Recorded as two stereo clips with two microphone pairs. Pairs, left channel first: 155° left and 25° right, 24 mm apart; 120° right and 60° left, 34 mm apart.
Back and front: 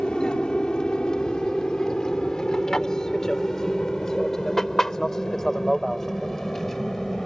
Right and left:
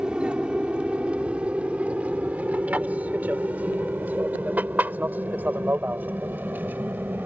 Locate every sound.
0.0 s an aircraft: 115° left; by 7.3 s 80° left